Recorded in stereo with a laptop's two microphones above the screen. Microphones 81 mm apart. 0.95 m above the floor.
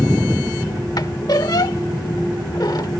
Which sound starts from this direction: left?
A squeak, at 1.0 s.